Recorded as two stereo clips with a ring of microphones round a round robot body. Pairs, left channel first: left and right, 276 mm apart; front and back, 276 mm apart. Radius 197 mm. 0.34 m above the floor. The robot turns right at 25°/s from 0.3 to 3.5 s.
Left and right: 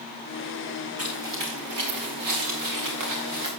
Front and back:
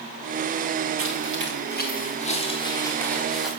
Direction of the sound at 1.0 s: 145° right.